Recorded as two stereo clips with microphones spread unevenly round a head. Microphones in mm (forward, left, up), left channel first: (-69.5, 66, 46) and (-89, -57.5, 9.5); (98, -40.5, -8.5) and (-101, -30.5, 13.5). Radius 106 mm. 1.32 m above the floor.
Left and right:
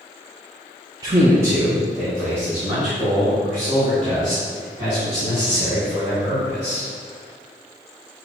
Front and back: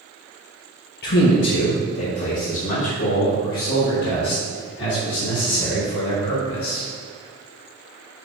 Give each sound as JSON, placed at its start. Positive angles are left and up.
{"t": 1.0, "sound": "a man speaking", "azimuth_deg": -35, "distance_m": 1.0}